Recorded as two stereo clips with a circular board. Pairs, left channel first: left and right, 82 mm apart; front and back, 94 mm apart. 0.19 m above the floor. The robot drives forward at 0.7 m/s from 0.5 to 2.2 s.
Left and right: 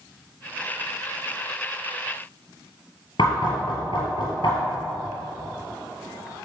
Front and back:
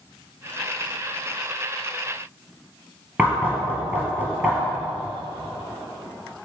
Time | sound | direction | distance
3.2 | knocking | 110° left | 3 m